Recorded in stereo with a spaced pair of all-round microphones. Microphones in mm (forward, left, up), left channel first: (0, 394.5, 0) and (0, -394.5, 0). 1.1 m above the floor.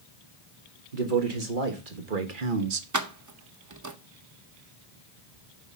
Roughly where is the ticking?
I don't hear ticking.